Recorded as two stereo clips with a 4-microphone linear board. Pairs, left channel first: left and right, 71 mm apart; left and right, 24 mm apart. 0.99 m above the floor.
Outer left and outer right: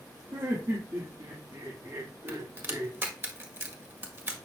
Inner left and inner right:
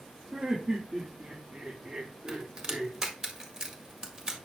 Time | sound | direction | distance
0.3 | laughter | 55° right (ahead or behind) | 2 m
2.3 | a crack | 30° right (ahead or behind) | 1.7 m